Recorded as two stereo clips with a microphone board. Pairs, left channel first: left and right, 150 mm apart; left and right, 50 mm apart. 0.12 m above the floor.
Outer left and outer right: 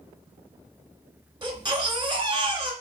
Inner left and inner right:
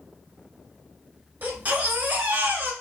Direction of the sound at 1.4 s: 35° right (ahead or behind).